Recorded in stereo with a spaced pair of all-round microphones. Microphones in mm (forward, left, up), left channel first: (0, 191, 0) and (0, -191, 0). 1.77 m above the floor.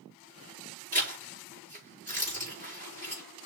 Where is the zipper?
20° right (ahead or behind), 4 m.